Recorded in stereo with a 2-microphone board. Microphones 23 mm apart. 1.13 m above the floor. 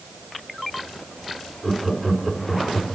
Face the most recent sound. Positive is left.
turn(degrees=0)  # may be behind; listen again after turning